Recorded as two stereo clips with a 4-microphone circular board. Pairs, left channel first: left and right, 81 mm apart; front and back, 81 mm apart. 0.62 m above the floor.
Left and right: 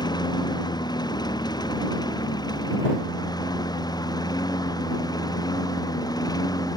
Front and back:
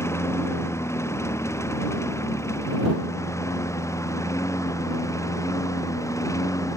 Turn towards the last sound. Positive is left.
turn(degrees=50)